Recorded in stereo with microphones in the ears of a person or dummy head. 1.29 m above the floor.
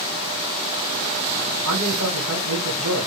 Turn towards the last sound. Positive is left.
turn(degrees=-70)  # may be behind; listen again after turning